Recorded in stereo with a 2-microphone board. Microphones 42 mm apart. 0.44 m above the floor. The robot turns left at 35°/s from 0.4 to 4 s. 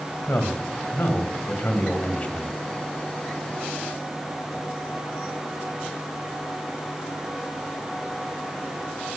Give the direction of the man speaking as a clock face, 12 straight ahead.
9 o'clock.